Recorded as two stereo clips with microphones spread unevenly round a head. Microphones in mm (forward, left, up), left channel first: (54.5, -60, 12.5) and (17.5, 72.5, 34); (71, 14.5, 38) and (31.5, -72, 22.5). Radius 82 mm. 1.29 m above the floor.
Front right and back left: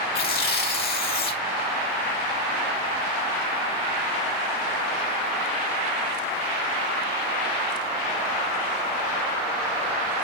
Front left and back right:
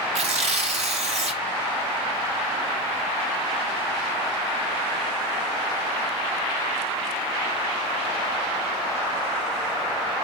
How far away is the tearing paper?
About 1.9 m.